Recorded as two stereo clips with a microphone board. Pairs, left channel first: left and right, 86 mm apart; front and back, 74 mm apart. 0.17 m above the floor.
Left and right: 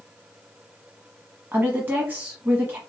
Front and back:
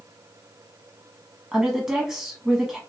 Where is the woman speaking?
105° right, 1.1 m.